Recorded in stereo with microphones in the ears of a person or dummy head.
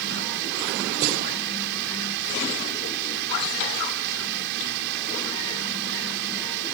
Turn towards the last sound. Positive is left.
turn(degrees=-60)  # may be behind; listen again after turning